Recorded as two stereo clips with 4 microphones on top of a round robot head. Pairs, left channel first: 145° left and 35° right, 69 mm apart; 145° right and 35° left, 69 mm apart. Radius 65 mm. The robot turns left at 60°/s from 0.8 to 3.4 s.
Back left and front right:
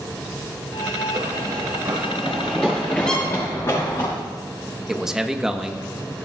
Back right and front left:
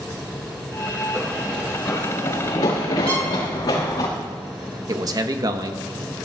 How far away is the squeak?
About 3 m.